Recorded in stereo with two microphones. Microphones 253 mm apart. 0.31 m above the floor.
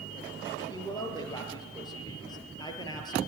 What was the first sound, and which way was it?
A woman speaking, 15° left (ahead or behind).